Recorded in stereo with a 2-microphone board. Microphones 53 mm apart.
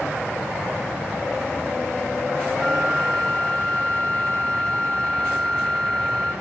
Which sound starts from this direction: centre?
A flute, at 2.5 s.